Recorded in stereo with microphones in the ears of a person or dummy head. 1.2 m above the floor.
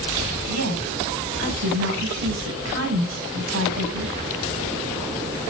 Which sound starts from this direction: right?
A woman speaking, at 0.5 s.